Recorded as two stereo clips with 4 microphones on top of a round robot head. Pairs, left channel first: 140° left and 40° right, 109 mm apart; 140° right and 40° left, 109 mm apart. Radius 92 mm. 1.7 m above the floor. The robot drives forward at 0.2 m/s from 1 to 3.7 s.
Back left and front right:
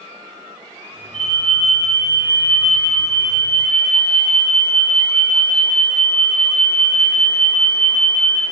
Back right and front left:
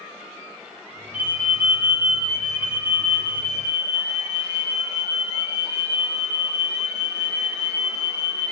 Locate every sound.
1.1 s an alarm: 115° left, 3 m; by 8.4 s 125° left, 3.5 m